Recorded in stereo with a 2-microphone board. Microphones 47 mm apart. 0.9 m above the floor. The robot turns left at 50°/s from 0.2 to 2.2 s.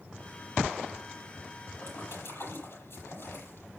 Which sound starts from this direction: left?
A splash, at 1.8 s.